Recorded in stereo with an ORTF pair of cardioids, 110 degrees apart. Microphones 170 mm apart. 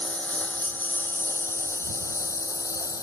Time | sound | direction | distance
0.0 | a lawn mower | 10° left | ?